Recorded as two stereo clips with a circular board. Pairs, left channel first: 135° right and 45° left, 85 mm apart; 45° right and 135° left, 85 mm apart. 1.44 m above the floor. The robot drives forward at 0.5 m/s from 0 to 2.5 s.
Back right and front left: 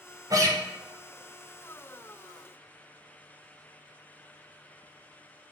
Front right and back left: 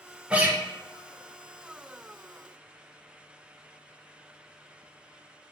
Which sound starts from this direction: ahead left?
A guitar, at 0.3 s.